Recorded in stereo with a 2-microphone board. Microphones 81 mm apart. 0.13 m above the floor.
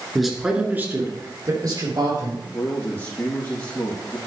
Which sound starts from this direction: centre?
A man speaking, at 0.1 s.